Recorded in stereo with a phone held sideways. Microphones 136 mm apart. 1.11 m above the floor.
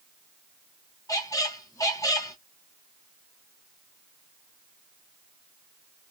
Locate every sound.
1.1 s a squeak: 25° left (ahead or behind), 0.7 m